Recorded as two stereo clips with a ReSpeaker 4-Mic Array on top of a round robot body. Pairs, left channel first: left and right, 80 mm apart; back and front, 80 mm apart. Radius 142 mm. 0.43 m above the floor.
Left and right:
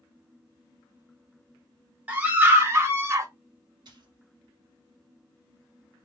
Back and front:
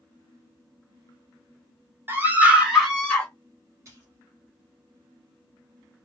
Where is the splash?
55° right, 0.9 m.